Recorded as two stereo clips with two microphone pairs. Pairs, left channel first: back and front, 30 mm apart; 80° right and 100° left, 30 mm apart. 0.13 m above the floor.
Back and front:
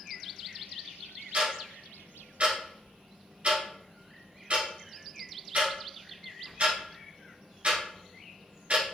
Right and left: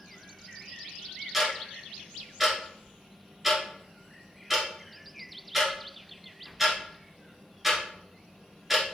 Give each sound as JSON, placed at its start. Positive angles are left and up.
{"t": 1.3, "sound": "ticking", "azimuth_deg": 20, "distance_m": 1.5}